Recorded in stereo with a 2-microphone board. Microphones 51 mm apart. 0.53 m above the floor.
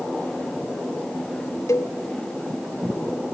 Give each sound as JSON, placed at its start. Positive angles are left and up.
{"t": 1.7, "sound": "a cowbell", "side_deg": 65, "distance_m": 0.9}